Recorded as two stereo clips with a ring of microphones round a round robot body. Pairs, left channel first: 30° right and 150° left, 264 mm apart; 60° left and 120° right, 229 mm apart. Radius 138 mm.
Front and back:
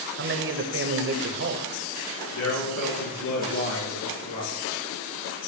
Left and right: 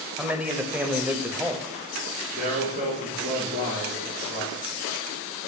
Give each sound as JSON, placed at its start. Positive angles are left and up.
{"t": 0.2, "sound": "a man speaking", "azimuth_deg": 160, "distance_m": 1.2}
{"t": 2.3, "sound": "a man speaking", "azimuth_deg": -65, "distance_m": 5.0}